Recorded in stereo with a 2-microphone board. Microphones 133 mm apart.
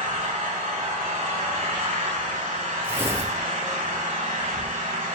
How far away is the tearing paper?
About 1.9 m.